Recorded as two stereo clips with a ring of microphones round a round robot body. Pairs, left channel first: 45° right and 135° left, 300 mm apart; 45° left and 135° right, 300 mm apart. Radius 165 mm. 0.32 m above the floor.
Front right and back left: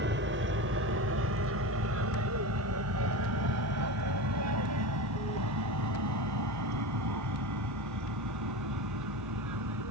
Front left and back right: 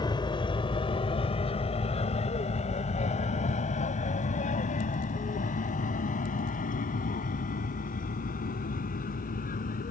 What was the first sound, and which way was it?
An aircraft, 115° left.